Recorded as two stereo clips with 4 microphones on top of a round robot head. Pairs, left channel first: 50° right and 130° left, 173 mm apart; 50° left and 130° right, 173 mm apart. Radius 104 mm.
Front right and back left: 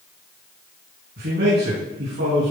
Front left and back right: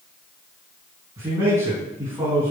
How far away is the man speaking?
About 6.5 m.